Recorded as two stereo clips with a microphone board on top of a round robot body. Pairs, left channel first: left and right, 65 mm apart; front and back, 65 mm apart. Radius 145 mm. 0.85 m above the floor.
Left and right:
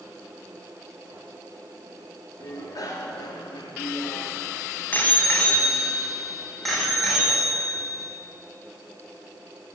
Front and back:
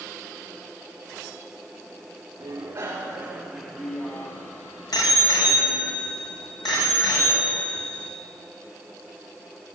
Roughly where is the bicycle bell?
Behind left.